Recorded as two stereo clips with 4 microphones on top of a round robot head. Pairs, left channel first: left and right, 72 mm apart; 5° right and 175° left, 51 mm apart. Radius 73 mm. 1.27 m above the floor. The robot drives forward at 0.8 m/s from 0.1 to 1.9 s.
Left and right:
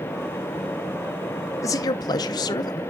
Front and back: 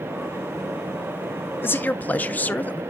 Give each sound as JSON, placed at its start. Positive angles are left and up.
{"t": 1.6, "sound": "a man speaking", "azimuth_deg": 35, "distance_m": 0.7}